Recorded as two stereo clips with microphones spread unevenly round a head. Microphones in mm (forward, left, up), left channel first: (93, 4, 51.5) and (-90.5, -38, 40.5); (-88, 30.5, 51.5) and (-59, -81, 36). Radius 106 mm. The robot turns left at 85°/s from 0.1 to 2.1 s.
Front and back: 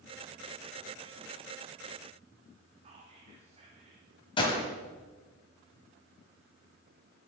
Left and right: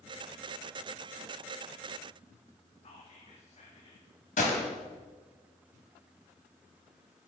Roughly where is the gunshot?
Left.